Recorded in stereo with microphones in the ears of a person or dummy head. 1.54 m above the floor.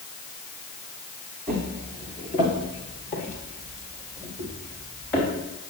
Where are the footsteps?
5° left (ahead or behind), 1.6 m; by 5.3 s 30° left (ahead or behind), 5 m.